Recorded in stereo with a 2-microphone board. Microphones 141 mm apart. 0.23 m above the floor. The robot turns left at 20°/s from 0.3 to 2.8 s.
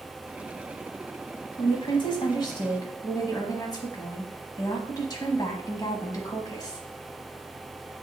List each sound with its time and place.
1.6 s a woman speaking: 35° left (ahead or behind), 1.2 m; by 6.9 s 25° left (ahead or behind), 1.2 m